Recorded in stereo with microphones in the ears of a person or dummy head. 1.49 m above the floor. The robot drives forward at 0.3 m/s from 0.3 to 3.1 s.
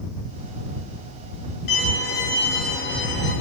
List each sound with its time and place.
1.7 s a violin: 55° left (ahead or behind), 5 m; by 3.3 s 60° left (ahead or behind), 5 m